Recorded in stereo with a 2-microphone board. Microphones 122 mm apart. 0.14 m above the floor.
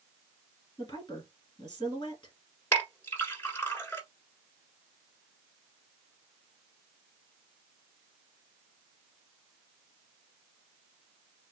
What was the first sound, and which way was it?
A woman speaking, 40° left (ahead or behind).